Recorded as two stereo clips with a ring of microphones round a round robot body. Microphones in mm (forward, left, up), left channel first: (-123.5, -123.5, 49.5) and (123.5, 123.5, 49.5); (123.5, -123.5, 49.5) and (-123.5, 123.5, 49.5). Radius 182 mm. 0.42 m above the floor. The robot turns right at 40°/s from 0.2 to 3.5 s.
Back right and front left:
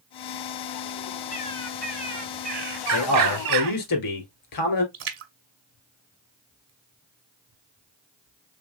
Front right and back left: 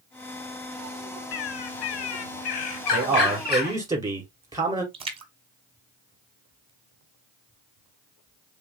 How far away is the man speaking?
About 2 m.